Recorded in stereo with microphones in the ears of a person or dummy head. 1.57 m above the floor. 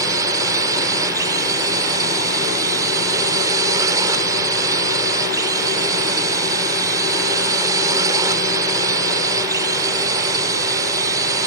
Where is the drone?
20° right (ahead or behind).